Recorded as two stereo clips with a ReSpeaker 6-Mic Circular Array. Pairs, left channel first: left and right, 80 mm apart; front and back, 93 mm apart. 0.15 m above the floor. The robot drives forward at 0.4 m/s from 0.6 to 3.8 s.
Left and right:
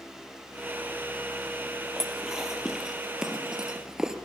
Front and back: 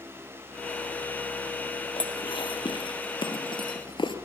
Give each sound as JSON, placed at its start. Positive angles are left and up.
{"t": 2.0, "sound": "dishes clattering", "azimuth_deg": -5, "distance_m": 2.5}